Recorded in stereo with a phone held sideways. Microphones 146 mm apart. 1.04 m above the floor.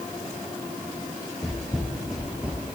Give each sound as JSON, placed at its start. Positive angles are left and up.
{"t": 1.4, "sound": "footsteps", "side_deg": 5, "distance_m": 1.5}